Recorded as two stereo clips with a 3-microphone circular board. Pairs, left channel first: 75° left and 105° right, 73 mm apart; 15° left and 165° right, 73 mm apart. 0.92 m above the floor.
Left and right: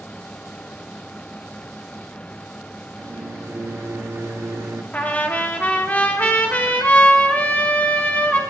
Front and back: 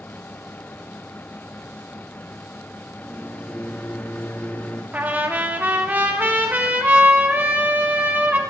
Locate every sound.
3.0 s a microwave: 55° right, 1.1 m
4.9 s a trumpet: 135° left, 1.2 m